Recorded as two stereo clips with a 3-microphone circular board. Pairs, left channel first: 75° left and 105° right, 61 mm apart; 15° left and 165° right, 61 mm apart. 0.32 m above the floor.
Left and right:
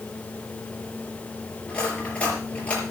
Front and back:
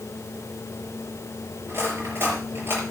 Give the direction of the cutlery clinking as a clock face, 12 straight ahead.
7 o'clock.